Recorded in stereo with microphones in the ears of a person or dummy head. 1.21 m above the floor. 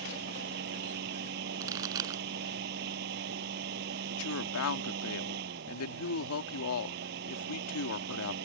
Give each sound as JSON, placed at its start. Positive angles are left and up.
{"t": 0.0, "sound": "a fan", "side_deg": -65}
{"t": 1.6, "sound": "a pop", "side_deg": -25}
{"t": 4.1, "sound": "a woman speaking", "side_deg": 80}